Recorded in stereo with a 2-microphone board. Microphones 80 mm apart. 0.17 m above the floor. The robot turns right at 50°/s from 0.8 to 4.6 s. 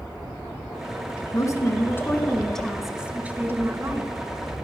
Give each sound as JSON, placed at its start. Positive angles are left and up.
{"t": 1.3, "sound": "a woman speaking", "azimuth_deg": 110, "distance_m": 1.6}